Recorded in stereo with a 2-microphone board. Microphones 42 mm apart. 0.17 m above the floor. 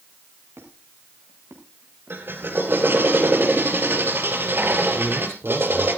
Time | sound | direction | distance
0.6 | a squeak | 80° right | 6 m
2.1 | a drill | 55° right (ahead or behind) | 3 m
5.0 | a man speaking | 65° right (ahead or behind) | 5 m